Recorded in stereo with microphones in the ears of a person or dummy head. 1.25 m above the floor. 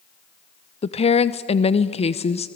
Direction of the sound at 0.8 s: 30° left (ahead or behind).